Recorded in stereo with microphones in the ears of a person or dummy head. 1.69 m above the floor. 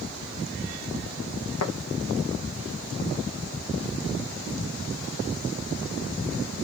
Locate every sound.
1.6 s tapping: 85° left, 1.0 m